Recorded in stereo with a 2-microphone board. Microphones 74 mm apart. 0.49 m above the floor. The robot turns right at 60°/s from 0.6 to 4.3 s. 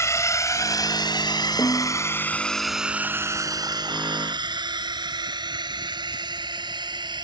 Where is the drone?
40° left (ahead or behind); by 7.2 s 75° right (ahead or behind).